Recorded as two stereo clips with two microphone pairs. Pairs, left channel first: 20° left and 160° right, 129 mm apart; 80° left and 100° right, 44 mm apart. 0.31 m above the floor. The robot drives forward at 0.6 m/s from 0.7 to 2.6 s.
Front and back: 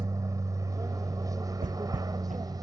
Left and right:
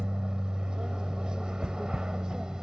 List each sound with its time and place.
0.0 s an aircraft: 145° right; by 2.6 s 150° right
1.6 s footsteps: 170° right